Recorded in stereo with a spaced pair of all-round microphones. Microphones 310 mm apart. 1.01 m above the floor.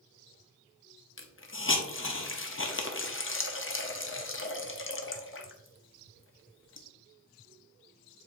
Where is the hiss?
40° left (ahead or behind), 0.6 m.